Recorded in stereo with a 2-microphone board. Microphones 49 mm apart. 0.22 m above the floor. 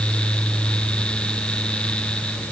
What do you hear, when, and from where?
Only background noise.